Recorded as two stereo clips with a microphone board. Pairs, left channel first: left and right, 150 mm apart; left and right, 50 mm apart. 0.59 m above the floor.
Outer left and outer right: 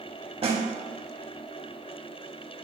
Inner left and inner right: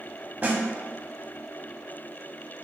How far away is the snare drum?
About 0.5 m.